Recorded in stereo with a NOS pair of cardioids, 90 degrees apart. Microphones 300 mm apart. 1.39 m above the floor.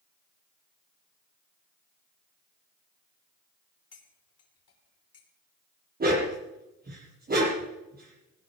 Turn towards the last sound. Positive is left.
turn(degrees=-30)